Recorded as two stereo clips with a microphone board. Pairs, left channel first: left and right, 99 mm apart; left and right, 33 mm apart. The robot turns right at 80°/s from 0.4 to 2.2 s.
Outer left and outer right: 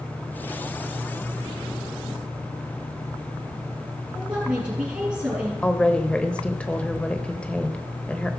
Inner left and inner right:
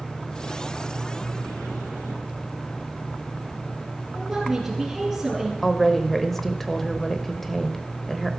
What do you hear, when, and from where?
4.1 s a woman speaking: 15° right (ahead or behind), 5 m
5.6 s a woman speaking: 10° left (ahead or behind), 0.9 m